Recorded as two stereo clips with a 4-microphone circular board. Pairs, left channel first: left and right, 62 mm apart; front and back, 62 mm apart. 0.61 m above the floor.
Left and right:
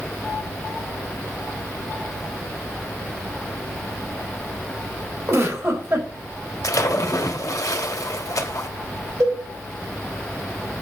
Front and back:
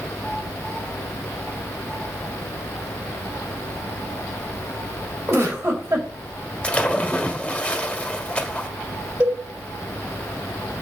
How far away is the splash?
About 1.7 m.